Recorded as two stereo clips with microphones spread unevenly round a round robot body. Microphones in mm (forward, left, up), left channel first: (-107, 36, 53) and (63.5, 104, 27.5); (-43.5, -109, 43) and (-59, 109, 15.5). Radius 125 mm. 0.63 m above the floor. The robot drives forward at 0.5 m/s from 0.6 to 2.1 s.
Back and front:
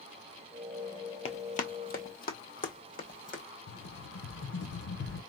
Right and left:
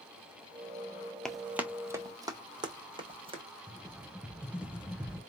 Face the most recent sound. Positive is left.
turn(degrees=180)